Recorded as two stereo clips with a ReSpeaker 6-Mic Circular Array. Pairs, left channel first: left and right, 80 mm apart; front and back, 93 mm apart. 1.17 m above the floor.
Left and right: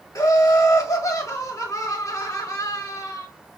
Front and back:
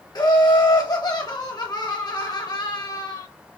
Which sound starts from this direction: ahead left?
Laughter, at 0.1 s.